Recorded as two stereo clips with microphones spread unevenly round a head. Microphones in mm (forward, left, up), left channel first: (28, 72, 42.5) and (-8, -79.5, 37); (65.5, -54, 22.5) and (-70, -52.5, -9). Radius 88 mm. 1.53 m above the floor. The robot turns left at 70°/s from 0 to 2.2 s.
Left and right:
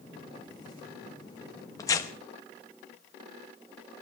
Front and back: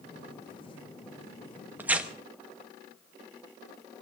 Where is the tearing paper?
85° left, 0.8 m; by 2.1 s 65° left, 0.8 m.